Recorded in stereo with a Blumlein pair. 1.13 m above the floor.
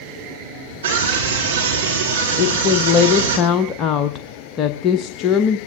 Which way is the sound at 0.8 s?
60° right.